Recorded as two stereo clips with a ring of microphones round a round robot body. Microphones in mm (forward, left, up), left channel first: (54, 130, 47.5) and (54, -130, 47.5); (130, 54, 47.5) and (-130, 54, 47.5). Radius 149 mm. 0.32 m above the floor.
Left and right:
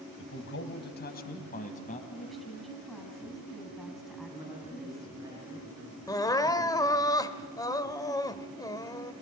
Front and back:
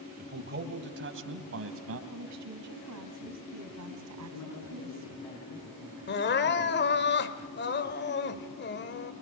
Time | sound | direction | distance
0.2 | a man speaking | 130° left | 2 m
2.1 | a woman speaking | straight behind | 3.5 m
4.3 | a man speaking | 15° right | 6 m
6.1 | crying | 20° left | 1.1 m